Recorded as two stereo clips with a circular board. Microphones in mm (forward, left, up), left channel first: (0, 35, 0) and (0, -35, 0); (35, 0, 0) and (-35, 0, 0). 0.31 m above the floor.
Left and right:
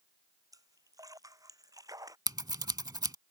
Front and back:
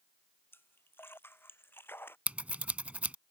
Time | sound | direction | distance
0.5 | a splash | 60° right | ?
2.3 | scissors | 110° right | ?